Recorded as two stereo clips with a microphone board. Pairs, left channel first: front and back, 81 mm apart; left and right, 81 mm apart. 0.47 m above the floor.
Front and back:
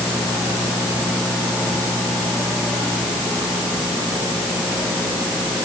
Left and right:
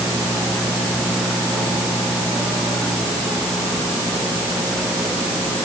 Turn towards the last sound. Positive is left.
No sound to turn to.